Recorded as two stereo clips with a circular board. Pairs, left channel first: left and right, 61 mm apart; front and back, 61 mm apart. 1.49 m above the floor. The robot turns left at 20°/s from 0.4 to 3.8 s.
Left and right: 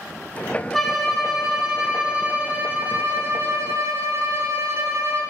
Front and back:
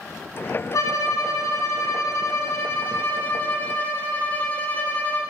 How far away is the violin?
About 0.6 m.